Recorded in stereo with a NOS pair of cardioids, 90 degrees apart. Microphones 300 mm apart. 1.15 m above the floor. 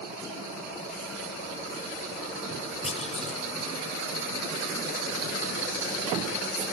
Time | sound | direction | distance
2.8 | a clunk | 20° left | 6.5 m